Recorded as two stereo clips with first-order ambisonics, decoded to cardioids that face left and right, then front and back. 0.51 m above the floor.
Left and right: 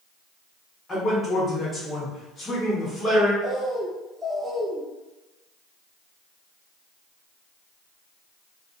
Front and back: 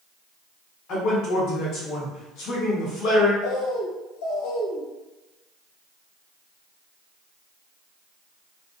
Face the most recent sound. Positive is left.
turn(degrees=-5)